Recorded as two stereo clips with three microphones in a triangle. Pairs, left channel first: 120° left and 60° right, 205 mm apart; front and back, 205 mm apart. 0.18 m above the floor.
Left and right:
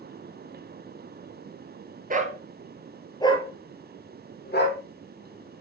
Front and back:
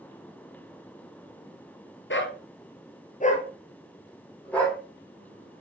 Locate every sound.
2.1 s a dog barking: 15° right, 1.7 m; by 4.8 s 85° left, 3.5 m